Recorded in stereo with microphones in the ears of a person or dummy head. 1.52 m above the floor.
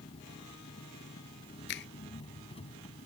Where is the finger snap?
65° left (ahead or behind).